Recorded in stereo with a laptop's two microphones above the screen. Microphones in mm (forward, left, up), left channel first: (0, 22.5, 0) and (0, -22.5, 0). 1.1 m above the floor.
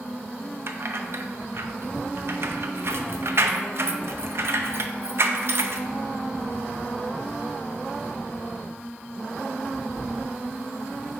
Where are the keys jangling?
60° right (ahead or behind), 0.6 m.